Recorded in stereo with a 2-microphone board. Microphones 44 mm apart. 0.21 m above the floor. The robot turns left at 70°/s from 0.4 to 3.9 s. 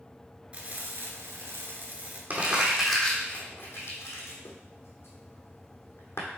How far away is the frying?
About 1.4 m.